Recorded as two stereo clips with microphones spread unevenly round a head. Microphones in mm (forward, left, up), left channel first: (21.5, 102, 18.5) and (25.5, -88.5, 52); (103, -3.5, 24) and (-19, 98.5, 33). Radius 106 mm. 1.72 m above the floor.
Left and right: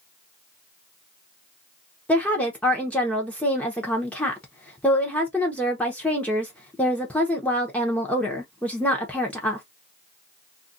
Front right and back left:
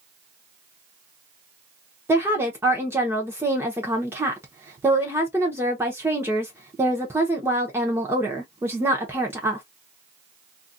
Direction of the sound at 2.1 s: 170° right.